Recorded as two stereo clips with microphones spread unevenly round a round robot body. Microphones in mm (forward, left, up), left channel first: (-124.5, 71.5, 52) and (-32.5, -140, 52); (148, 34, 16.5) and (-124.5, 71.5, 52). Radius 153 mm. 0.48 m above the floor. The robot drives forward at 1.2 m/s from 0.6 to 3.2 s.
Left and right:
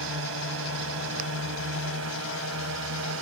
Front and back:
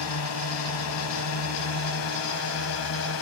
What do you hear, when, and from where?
0.0 s a drone: 35° right; by 3.2 s 40° right